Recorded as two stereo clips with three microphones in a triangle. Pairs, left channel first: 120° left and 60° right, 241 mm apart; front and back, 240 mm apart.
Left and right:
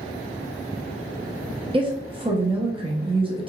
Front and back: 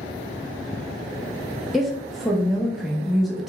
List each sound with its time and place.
1.7 s a woman speaking: 90° right, 0.6 m